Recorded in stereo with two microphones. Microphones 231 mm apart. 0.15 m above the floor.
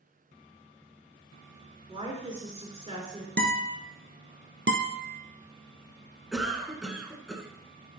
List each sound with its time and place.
1.9 s a woman speaking: 25° right (ahead or behind), 2.5 m
3.4 s a guitar: 45° right (ahead or behind), 1.1 m
4.7 s a guitar: 60° right (ahead or behind), 0.9 m
6.3 s a cough: centre (ahead or behind), 1.4 m